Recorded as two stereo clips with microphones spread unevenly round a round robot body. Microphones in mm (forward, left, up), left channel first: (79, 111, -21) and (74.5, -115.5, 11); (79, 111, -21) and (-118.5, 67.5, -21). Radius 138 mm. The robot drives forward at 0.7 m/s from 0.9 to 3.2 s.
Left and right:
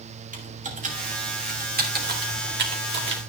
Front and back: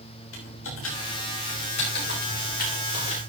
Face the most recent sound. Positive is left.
turn(degrees=-55)